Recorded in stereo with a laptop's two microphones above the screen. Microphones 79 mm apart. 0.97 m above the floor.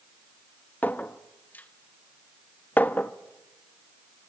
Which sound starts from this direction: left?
A clink, at 0.8 s.